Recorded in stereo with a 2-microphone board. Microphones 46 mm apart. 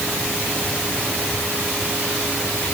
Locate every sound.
Only background noise.